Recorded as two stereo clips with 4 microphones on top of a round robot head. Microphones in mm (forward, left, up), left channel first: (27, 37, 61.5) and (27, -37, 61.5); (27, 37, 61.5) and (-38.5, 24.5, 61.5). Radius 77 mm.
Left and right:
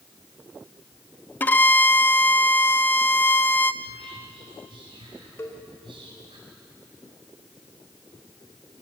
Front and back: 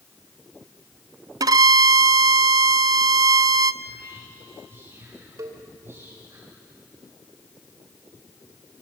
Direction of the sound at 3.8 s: 110° right.